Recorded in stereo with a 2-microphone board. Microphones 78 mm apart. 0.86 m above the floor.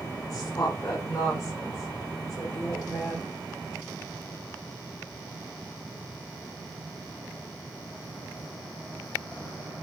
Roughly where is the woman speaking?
Left.